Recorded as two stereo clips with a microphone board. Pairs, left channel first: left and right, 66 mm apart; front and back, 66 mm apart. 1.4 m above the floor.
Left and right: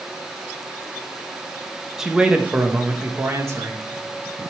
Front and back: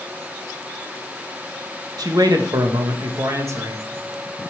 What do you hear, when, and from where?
2.0 s a man speaking: 175° right, 1.5 m; by 3.9 s 130° right, 1.8 m